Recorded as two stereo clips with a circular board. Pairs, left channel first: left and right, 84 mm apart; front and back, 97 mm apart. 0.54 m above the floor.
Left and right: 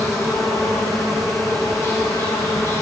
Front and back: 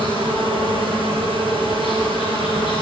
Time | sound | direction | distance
0.0 | an insect | 30° left | 5 m